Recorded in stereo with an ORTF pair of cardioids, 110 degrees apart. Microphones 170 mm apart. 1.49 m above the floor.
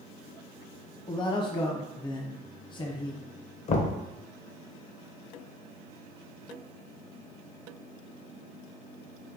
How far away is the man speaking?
About 0.8 m.